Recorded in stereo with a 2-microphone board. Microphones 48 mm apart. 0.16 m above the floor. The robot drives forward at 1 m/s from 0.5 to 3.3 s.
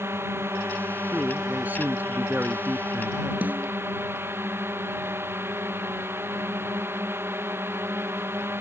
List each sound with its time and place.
0.0 s a drone: 60° right (ahead or behind); by 8.6 s 55° right (ahead or behind)
1.1 s a man speaking: 35° right (ahead or behind); by 3.3 s 40° right (ahead or behind)
3.4 s a snare drum: 35° right (ahead or behind)